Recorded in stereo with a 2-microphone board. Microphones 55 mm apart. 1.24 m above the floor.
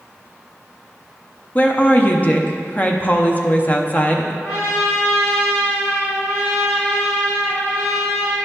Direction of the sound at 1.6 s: 30° left (ahead or behind).